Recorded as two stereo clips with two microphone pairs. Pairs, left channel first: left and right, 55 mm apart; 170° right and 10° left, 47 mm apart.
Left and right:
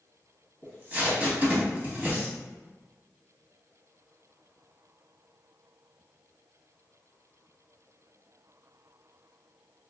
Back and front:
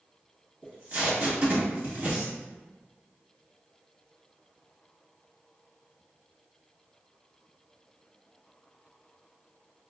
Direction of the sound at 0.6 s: 30° right.